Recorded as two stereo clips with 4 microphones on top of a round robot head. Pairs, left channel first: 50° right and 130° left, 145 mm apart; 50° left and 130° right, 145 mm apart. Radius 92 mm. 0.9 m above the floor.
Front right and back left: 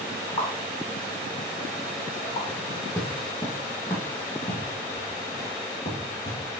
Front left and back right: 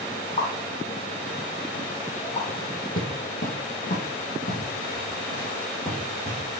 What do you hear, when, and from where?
0.4 s a pop: 5° left, 4 m
2.5 s footsteps: 25° left, 2 m; by 6.4 s 5° right, 4 m